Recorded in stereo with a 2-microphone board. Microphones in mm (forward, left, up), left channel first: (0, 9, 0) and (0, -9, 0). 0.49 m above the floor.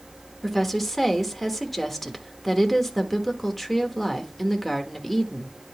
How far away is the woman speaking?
About 1.0 m.